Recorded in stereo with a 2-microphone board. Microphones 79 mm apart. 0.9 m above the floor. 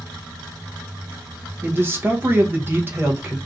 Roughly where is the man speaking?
Right.